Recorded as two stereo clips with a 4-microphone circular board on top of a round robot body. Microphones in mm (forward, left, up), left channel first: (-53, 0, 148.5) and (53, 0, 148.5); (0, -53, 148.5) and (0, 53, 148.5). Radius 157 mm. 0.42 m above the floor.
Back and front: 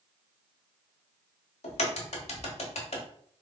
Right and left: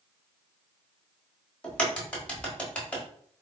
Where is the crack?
170° right, 1.2 m.